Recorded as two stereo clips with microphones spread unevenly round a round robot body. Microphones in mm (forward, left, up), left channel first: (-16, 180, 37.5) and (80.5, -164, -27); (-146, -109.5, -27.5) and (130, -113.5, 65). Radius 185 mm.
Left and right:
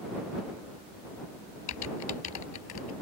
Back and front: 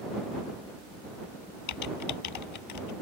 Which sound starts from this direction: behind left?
Typing on a keyboard, at 1.7 s.